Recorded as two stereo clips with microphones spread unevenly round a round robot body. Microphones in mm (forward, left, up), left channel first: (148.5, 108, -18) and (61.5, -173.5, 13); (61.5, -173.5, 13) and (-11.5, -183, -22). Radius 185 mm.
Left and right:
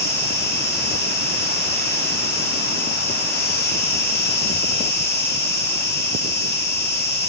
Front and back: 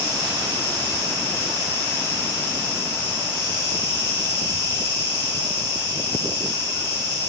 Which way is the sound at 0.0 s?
25° left.